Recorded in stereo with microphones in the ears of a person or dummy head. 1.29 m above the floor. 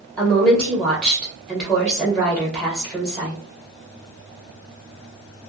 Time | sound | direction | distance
0.2 | a woman speaking | 5° left (ahead or behind) | 1.2 m